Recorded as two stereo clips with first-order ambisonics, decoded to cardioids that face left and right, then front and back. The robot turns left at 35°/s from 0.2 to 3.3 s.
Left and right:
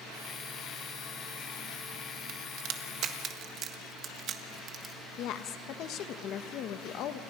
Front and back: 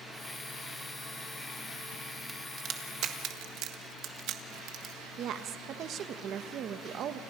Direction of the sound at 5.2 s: 130° left.